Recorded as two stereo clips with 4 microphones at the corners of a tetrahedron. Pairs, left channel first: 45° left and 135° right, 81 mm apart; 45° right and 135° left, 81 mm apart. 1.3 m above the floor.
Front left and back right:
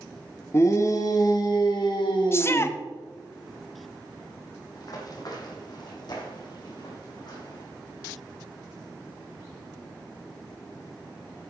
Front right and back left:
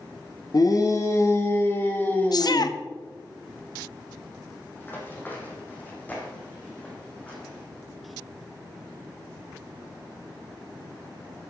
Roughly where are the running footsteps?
Ahead.